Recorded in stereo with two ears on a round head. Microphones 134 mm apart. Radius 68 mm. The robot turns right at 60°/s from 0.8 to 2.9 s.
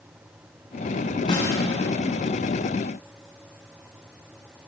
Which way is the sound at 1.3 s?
30° left (ahead or behind).